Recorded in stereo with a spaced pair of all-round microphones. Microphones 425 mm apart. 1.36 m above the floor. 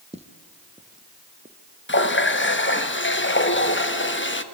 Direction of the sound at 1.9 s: 30° left (ahead or behind).